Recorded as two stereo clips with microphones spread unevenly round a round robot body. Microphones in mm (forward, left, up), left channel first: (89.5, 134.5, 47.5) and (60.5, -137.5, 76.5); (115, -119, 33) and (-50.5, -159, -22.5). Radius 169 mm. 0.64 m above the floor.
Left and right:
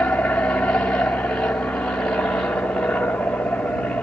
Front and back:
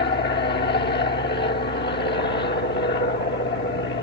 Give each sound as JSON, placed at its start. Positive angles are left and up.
{"t": 0.0, "sound": "an aircraft", "azimuth_deg": 5}